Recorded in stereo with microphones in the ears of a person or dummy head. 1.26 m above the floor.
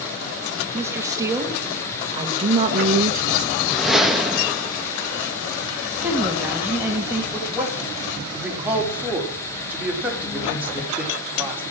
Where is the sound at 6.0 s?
10° right (ahead or behind), 2 m.